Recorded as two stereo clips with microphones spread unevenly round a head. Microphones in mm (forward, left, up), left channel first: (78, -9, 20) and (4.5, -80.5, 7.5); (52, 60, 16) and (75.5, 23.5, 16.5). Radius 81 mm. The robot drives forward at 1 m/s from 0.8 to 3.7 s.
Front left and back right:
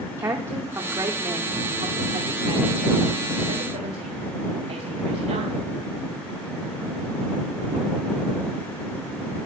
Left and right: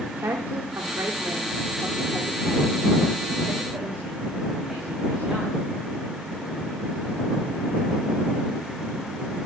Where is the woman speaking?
75° right, 2 m; by 5.6 s 140° right, 3 m.